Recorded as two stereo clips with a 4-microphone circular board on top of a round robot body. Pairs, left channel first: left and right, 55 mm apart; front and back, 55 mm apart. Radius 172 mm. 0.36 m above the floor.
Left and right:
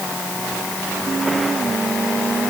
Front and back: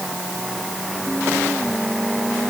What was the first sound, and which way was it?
Only background noise.